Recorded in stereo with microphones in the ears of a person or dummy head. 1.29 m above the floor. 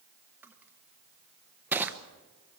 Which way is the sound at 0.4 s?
10° right (ahead or behind).